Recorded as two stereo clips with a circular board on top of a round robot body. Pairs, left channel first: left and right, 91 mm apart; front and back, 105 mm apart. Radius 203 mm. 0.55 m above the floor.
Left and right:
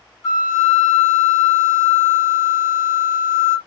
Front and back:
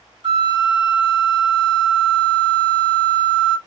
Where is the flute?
145° left, 1.3 m.